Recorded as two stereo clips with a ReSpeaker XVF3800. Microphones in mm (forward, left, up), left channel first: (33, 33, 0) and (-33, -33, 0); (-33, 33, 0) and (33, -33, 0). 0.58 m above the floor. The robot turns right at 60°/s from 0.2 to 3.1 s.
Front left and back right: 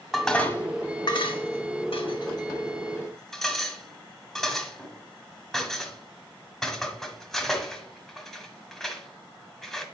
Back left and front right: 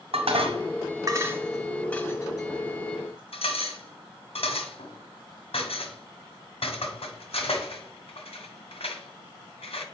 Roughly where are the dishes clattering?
Ahead right.